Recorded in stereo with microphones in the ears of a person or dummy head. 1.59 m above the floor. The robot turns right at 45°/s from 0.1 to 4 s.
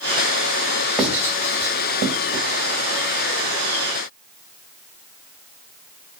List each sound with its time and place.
1.0 s writing: centre (ahead or behind), 3.5 m; by 2.4 s 60° right (ahead or behind), 3.5 m